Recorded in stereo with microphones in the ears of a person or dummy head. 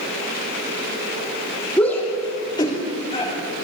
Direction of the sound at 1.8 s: 10° left (ahead or behind).